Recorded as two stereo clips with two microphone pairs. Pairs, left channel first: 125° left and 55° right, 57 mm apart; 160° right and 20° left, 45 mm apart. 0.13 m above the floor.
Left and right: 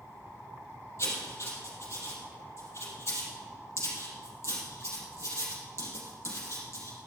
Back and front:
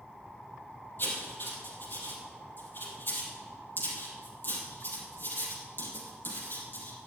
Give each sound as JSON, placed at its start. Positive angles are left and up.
{"t": 1.0, "sound": "writing", "azimuth_deg": 160, "distance_m": 4.0}